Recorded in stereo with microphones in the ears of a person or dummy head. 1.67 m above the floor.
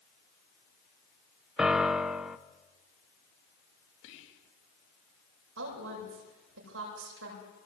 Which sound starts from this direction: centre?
A piano, at 1.6 s.